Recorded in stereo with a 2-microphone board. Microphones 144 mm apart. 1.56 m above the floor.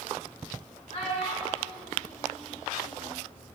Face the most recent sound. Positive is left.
turn(degrees=65)  # may be behind; listen again after turning